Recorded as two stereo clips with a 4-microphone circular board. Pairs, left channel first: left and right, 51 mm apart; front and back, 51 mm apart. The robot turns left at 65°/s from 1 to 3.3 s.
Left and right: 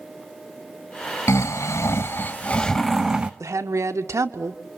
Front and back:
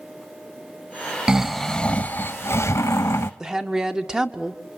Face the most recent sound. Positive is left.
turn(degrees=-105)